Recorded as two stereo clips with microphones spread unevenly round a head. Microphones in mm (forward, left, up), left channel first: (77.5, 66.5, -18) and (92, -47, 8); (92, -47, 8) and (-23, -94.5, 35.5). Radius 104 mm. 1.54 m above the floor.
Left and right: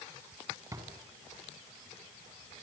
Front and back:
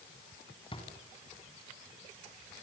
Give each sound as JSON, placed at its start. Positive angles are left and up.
{"t": 0.7, "sound": "a drawer", "azimuth_deg": -25, "distance_m": 4.0}